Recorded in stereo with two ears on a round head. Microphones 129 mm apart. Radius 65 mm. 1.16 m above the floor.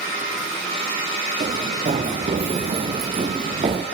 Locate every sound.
1.4 s running footsteps: 45° right (ahead or behind), 5.5 m; by 3.9 s 35° right (ahead or behind), 2.5 m